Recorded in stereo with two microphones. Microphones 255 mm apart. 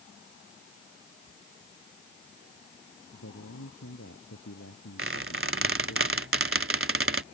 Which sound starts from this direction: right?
A squeak, at 5.0 s.